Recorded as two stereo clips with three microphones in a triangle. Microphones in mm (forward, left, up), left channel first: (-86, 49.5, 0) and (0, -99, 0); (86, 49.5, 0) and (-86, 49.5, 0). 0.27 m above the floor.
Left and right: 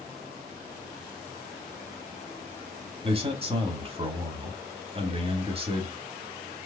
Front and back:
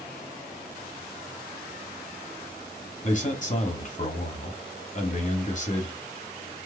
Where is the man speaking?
20° right, 1.3 m.